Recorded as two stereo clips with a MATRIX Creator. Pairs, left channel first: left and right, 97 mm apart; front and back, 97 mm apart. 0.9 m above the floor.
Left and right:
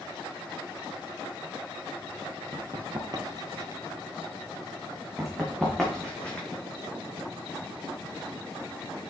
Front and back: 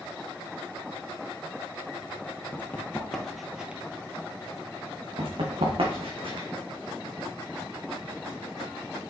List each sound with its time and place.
2.5 s running footsteps: 60° right, 1.4 m; by 3.8 s 110° right, 1.1 m
5.2 s running footsteps: 175° right, 2.5 m; by 6.5 s 165° left, 2.5 m